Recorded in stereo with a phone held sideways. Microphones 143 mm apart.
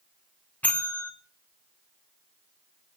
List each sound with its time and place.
0.6 s a bell: 10° left (ahead or behind), 2 m